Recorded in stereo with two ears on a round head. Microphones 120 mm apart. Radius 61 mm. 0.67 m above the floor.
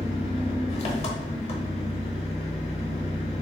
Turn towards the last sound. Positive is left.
turn(degrees=50)  # may be behind; listen again after turning